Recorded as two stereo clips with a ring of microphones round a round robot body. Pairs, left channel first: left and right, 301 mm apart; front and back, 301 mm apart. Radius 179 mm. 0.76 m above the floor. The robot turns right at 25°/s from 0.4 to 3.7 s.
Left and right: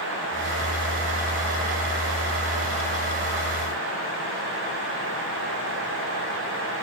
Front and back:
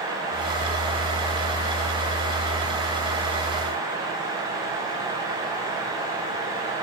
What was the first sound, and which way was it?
Only background noise.